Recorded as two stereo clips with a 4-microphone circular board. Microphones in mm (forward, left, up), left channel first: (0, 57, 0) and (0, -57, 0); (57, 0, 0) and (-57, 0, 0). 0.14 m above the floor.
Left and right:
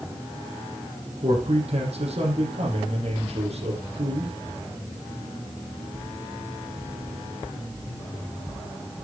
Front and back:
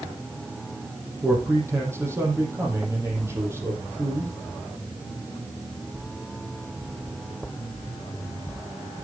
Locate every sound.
1.2 s a man speaking: 115° right, 5.5 m